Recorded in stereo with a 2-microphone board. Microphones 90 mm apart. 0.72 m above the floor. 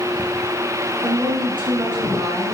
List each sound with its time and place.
1.0 s a woman speaking: 65° right (ahead or behind), 7 m